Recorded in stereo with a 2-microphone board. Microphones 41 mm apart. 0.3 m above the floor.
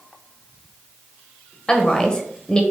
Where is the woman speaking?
20° left (ahead or behind), 0.9 m.